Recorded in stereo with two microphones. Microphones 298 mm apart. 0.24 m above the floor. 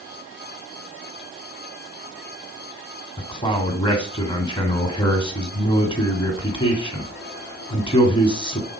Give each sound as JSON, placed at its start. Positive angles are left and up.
{"t": 3.2, "sound": "a man speaking", "side_deg": 15, "distance_m": 2.0}